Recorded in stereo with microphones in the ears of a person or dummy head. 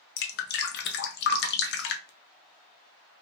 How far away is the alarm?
No alarm in this recording.